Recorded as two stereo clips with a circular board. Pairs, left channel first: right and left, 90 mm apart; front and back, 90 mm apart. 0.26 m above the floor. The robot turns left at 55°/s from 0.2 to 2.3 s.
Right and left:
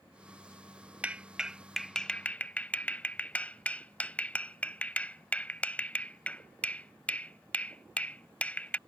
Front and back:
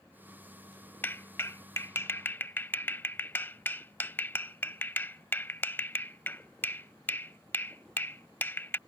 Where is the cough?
No cough in this recording.